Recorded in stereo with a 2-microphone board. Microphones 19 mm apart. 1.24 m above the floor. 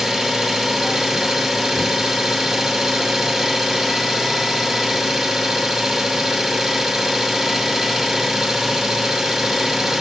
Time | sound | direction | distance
0.0 | an engine running | 20° right (ahead or behind) | 1.5 m